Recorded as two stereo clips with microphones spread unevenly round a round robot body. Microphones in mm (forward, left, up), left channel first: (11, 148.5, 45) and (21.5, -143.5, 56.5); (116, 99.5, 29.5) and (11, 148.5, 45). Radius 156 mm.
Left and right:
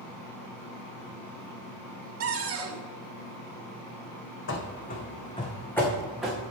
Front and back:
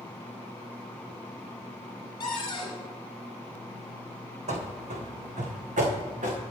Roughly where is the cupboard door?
Ahead right.